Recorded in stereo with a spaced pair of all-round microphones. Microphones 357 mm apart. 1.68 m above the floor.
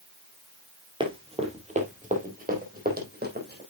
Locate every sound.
1.0 s running footsteps: 15° right (ahead or behind), 2.5 m; by 3.6 s 25° right (ahead or behind), 4 m